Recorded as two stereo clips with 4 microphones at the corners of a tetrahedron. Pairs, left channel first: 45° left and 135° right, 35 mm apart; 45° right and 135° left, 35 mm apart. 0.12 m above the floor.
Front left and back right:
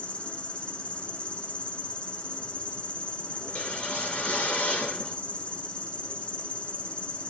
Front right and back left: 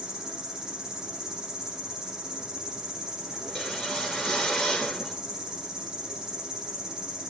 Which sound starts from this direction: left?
An insect, at 0.0 s.